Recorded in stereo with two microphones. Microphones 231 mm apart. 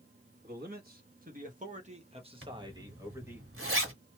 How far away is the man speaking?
About 1.3 m.